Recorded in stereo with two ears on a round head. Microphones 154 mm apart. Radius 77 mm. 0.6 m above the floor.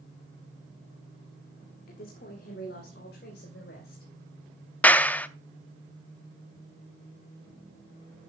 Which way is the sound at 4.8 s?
10° left (ahead or behind).